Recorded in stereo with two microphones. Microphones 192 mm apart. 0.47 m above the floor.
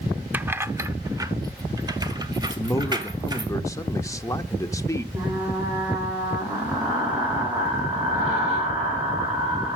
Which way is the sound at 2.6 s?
15° left (ahead or behind).